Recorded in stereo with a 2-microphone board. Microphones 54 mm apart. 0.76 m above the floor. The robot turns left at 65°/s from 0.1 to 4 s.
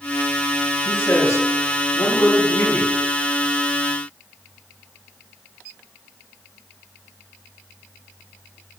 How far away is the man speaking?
About 10 m.